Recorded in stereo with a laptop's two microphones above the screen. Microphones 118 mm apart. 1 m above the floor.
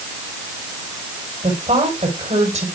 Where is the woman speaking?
85° right, 4 m.